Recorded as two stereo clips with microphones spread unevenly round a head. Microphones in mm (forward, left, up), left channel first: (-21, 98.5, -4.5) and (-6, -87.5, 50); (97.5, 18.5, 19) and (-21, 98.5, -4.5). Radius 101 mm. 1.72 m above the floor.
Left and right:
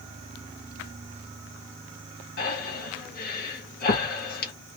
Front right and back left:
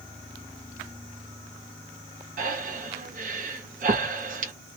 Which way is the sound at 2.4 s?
140° left.